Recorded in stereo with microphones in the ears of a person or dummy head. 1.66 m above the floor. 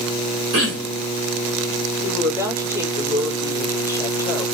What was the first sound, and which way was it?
Throat clearing, 55° right (ahead or behind).